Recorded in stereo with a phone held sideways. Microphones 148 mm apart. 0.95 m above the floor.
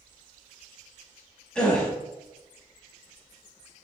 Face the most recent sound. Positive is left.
turn(degrees=5)  # may be behind; listen again after turning